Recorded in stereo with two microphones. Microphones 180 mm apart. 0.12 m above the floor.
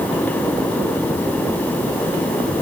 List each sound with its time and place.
Only background noise.